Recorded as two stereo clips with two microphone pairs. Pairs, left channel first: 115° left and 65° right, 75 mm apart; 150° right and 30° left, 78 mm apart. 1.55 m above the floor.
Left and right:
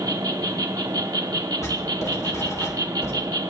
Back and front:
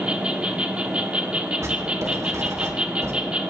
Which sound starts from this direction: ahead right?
An insect, at 0.0 s.